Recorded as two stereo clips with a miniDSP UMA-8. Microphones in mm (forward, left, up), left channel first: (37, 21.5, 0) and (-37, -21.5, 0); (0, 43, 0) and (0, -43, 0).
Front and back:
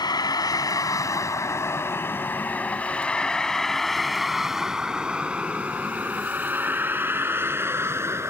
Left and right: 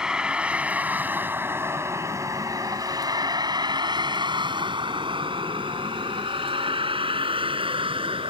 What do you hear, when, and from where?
0.0 s a vehicle: 10° right; by 8.3 s 90° right